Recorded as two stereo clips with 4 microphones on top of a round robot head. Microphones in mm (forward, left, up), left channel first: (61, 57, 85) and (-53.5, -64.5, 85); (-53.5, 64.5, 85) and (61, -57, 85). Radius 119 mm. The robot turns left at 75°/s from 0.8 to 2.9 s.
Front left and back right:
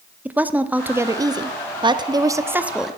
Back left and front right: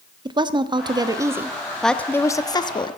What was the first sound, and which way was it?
A woman speaking, 65° right.